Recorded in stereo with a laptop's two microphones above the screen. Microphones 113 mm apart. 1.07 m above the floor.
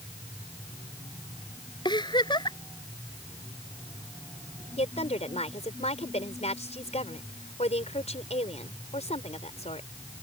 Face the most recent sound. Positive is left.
turn(degrees=75)  # may be behind; listen again after turning